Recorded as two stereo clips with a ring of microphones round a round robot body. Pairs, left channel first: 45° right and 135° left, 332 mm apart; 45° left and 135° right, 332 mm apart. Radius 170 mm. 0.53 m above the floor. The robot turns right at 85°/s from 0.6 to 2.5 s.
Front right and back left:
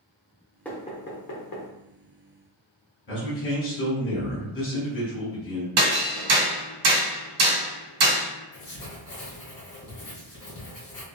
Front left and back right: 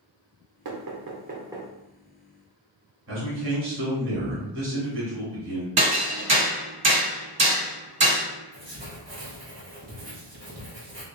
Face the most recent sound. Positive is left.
turn(degrees=-80)